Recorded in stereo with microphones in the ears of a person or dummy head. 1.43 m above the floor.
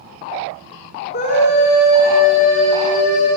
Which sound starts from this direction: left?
A scream, at 1.1 s.